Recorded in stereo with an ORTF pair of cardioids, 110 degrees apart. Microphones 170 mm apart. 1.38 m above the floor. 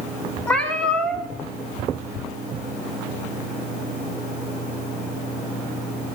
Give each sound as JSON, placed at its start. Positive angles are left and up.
{"t": 0.5, "sound": "a cat meowing", "azimuth_deg": 5, "distance_m": 2.0}